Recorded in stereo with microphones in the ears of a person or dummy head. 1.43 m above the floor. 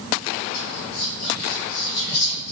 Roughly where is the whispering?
Left.